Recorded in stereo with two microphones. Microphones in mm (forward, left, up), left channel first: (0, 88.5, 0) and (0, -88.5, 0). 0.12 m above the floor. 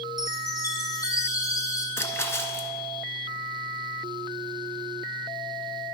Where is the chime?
20° left (ahead or behind), 1.5 m.